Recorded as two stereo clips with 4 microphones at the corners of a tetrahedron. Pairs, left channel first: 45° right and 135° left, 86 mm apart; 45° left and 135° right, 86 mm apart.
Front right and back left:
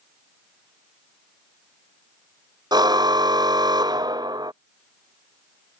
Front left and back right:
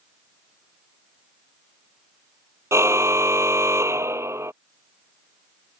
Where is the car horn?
170° left.